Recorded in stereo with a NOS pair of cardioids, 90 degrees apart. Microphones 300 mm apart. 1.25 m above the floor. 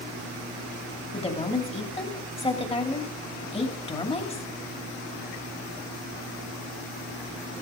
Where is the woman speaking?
20° left, 2.5 m.